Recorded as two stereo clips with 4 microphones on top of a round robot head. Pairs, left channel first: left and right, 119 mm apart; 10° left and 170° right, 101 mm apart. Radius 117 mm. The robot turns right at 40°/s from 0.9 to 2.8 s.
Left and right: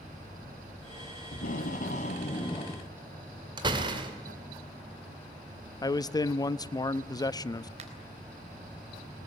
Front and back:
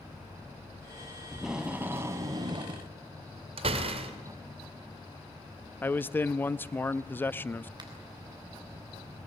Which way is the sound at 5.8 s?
65° left.